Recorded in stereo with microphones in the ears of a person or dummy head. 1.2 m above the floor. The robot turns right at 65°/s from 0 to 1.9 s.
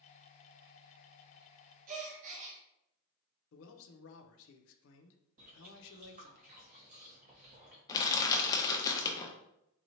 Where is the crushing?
25° left (ahead or behind), 0.6 m.